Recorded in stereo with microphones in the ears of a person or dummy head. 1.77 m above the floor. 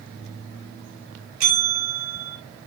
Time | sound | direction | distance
1.4 | a bell | 90° right | 6.5 m